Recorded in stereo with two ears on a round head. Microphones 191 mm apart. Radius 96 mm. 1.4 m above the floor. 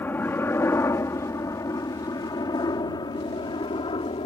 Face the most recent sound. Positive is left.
turn(degrees=25)  # may be behind; listen again after turning